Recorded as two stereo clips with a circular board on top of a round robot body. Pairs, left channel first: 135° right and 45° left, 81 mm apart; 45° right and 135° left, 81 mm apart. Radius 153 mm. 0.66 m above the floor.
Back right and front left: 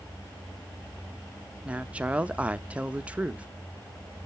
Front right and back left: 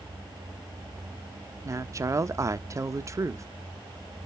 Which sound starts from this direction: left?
A woman speaking, at 1.6 s.